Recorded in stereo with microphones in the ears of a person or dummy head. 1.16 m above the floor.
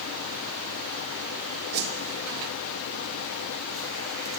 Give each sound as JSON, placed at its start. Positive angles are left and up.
{"t": 1.7, "sound": "a whoosh", "side_deg": -60, "distance_m": 1.9}